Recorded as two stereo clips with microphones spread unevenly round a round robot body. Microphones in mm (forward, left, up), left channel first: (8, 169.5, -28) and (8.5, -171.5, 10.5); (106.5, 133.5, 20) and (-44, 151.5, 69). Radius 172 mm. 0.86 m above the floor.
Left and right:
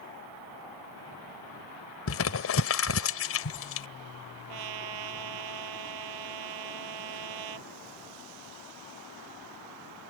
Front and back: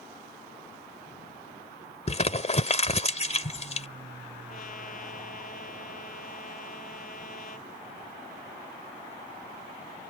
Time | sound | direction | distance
2.1 | crumpling | 40° left | ?
4.5 | a trumpet | 70° right | ?